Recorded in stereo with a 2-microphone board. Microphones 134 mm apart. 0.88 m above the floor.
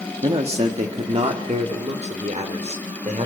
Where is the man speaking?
45° right (ahead or behind), 1.6 m; by 3.3 s 65° right (ahead or behind), 3.5 m.